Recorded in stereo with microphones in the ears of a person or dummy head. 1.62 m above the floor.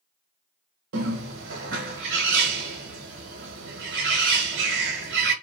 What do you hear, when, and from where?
0.9 s a bird: 65° right (ahead or behind), 1.1 m